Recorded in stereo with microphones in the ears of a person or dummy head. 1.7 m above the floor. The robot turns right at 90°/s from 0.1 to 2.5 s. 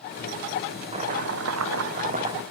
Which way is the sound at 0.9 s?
155° right.